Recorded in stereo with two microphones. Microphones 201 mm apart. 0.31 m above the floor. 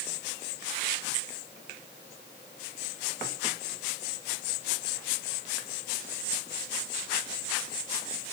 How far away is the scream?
No scream in this recording.